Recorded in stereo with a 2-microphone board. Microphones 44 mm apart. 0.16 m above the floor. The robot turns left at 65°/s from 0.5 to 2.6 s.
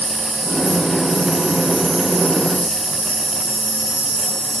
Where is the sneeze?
I don't hear a sneeze.